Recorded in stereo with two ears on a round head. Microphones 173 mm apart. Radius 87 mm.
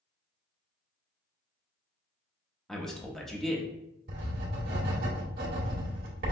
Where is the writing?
50° right (ahead or behind), 1.5 m.